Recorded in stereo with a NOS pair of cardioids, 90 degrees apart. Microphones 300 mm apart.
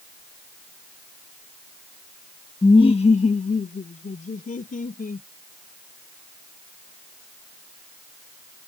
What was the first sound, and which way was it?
Laughter, 10° left.